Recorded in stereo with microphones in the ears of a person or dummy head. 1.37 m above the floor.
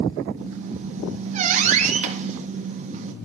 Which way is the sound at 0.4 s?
40° right (ahead or behind).